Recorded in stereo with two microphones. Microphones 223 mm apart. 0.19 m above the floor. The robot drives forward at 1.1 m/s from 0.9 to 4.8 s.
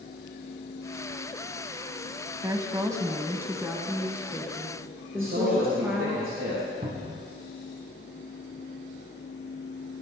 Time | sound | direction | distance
2.4 | a woman speaking | 15° right (ahead or behind) | 1.0 m
5.2 | a man speaking | 70° right (ahead or behind) | 4 m
6.8 | a cupboard door | 45° right (ahead or behind) | 2.0 m